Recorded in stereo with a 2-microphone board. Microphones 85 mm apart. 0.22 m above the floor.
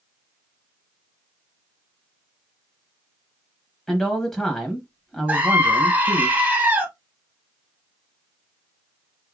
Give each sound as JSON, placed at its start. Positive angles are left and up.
{"t": 3.9, "sound": "a man speaking", "side_deg": 5, "distance_m": 0.9}
{"t": 5.3, "sound": "a scream", "side_deg": -20, "distance_m": 1.2}